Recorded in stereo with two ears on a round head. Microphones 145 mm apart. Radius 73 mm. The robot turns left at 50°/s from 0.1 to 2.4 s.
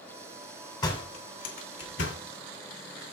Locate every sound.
0.8 s a door slam: 25° left (ahead or behind), 2.5 m; by 2.2 s 85° left, 2.5 m